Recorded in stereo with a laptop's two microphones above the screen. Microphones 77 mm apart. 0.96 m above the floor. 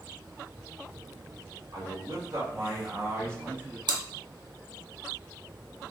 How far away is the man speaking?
About 1.8 m.